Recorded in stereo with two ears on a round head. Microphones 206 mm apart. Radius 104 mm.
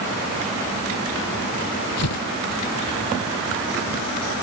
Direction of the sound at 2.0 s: 85° left.